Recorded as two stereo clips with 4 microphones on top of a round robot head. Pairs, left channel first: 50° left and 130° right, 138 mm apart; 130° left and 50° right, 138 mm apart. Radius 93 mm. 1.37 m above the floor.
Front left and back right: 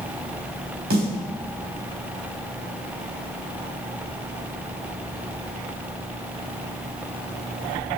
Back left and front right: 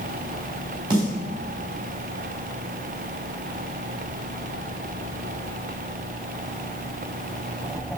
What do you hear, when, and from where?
0.9 s a snare drum: 110° right, 3.5 m